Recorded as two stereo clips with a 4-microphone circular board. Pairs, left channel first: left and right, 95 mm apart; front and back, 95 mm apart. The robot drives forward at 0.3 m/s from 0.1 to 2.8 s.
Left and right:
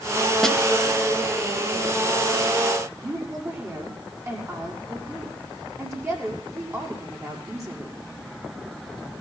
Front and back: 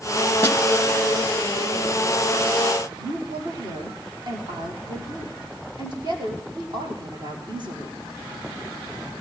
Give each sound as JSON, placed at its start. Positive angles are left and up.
{"t": 0.4, "sound": "a snare drum", "azimuth_deg": 5, "distance_m": 1.8}
{"t": 3.0, "sound": "a woman speaking", "azimuth_deg": -150, "distance_m": 6.0}